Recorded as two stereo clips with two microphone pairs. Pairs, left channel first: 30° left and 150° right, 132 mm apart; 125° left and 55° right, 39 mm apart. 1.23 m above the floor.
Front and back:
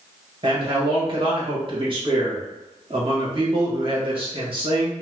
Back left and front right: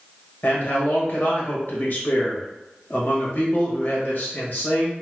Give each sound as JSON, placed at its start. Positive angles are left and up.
{"t": 0.4, "sound": "a man speaking", "azimuth_deg": 160, "distance_m": 1.2}